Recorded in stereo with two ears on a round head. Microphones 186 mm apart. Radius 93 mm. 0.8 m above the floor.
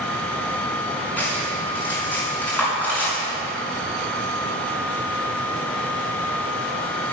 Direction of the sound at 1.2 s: 10° left (ahead or behind).